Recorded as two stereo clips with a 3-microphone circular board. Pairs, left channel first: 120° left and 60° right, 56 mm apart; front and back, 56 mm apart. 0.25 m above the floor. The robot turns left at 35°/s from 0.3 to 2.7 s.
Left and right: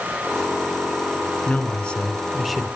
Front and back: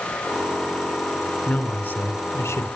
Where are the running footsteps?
No running footsteps in this recording.